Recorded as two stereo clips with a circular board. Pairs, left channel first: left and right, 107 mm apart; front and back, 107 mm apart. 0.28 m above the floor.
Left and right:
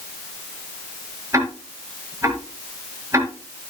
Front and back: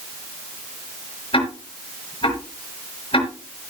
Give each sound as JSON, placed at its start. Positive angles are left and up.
{"t": 1.3, "sound": "ticking", "azimuth_deg": -30, "distance_m": 4.5}